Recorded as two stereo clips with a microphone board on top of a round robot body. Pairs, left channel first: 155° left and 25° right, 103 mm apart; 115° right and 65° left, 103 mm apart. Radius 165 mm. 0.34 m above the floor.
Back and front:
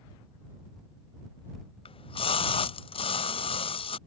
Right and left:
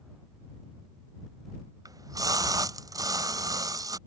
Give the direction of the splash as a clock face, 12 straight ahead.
8 o'clock.